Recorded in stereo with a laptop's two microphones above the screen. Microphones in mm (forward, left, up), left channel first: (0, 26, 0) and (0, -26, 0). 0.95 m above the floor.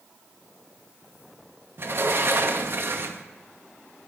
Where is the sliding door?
50° right (ahead or behind), 0.5 m.